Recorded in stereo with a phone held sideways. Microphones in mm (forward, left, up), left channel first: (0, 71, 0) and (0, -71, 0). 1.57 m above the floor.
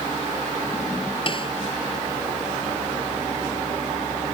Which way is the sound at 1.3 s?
40° left (ahead or behind).